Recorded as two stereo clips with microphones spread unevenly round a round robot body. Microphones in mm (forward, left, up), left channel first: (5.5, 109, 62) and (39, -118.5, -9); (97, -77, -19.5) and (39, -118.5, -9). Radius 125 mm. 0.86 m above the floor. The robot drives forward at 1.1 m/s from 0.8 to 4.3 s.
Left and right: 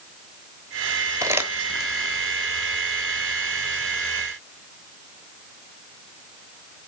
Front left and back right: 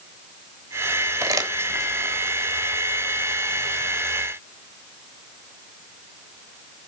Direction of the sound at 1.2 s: 170° right.